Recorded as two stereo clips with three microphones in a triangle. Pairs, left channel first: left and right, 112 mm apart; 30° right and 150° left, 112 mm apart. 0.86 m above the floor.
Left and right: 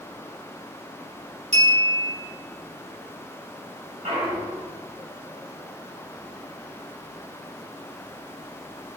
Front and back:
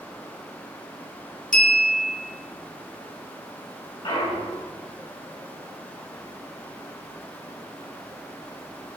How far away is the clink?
About 2 m.